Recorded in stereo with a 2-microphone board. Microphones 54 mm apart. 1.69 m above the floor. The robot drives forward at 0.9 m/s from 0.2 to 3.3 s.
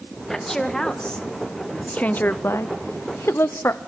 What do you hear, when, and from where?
0.3 s a woman speaking: 10° left (ahead or behind), 2.5 m; by 3.8 s 50° left (ahead or behind), 0.6 m